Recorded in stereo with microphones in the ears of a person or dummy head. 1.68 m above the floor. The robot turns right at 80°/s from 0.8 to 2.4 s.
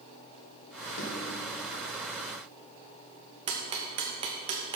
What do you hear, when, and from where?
1.0 s a snare drum: 40° left (ahead or behind), 1.3 m; by 1.2 s 55° left (ahead or behind), 1.3 m
3.5 s ticking: 25° right (ahead or behind), 0.8 m